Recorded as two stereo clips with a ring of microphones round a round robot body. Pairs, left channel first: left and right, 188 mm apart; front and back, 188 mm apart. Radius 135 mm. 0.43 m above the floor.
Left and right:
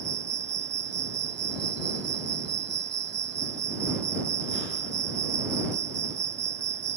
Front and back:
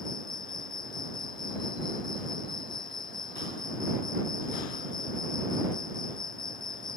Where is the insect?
75° right.